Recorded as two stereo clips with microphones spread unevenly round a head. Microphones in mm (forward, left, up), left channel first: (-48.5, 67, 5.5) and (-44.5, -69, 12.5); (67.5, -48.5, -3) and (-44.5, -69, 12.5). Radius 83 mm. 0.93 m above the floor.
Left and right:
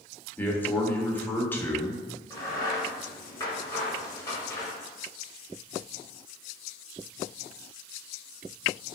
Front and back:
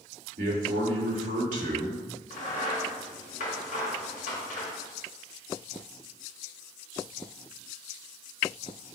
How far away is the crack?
About 1.2 m.